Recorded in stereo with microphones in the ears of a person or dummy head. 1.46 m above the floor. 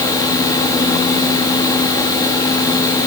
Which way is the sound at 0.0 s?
10° left (ahead or behind).